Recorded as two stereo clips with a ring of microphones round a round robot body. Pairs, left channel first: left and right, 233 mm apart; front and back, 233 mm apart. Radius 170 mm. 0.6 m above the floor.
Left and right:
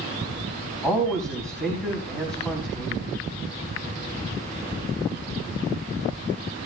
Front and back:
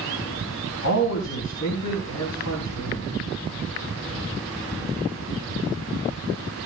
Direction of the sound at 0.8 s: Straight ahead.